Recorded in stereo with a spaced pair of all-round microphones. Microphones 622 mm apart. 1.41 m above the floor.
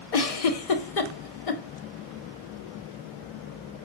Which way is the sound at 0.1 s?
65° left (ahead or behind).